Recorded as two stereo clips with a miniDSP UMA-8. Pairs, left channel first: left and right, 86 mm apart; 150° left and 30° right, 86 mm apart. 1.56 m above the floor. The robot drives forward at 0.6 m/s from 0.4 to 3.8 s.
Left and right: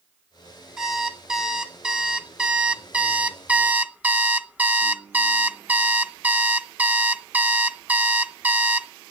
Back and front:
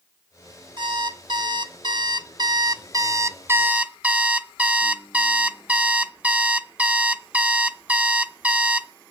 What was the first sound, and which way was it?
An alarm clock, 5° right.